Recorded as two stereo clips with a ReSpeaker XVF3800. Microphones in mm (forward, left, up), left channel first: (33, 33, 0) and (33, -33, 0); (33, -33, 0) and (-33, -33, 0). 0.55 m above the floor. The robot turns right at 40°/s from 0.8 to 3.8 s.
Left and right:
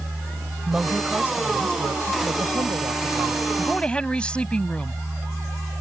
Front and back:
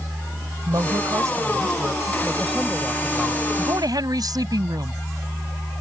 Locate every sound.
0.7 s a woman speaking: 165° right; by 3.4 s 60° right
3.6 s a woman speaking: 160° left; by 5.0 s 165° left